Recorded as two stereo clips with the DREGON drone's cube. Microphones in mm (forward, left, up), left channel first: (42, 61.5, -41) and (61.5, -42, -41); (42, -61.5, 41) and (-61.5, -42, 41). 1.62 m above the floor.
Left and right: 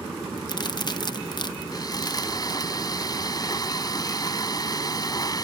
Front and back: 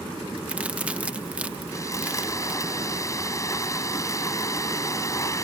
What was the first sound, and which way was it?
A crack, 100° left.